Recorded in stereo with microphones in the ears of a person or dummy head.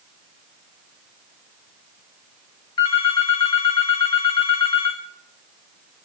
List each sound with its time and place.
2.8 s a phone ringing: 20° left (ahead or behind), 1.1 m